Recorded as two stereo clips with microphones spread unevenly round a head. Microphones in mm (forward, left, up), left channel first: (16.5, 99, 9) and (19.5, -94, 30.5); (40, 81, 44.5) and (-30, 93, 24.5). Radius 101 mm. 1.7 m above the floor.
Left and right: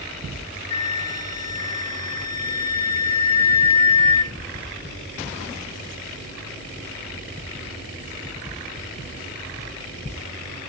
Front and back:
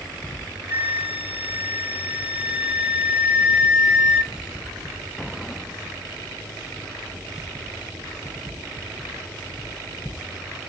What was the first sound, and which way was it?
A flute, 95° left.